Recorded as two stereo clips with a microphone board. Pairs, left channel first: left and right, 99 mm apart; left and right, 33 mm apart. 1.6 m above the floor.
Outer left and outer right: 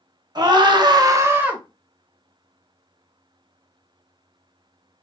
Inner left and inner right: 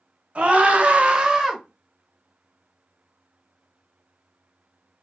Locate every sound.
0.3 s a scream: 45° right (ahead or behind), 0.8 m; by 1.6 s 10° right (ahead or behind), 0.7 m